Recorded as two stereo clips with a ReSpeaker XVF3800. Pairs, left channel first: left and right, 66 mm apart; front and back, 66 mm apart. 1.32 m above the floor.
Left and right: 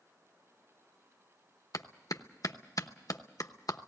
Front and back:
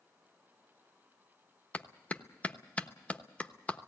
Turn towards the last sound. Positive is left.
turn(degrees=65)